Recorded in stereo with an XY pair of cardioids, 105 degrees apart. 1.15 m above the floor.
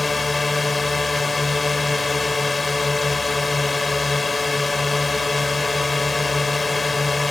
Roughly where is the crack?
No crack in this recording.